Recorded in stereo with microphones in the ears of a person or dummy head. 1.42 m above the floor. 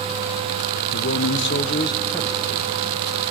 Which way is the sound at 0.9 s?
65° left (ahead or behind).